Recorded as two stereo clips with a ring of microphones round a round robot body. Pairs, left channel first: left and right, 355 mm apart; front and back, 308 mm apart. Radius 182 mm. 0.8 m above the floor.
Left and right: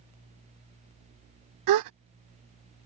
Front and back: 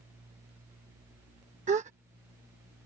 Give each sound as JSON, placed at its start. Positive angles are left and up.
{"t": 1.7, "sound": "a gasp", "azimuth_deg": -115}